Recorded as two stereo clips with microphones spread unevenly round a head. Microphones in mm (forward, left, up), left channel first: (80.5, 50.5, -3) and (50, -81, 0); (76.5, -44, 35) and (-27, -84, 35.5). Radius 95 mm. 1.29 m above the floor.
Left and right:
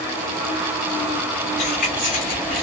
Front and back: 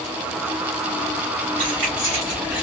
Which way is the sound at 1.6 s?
135° left.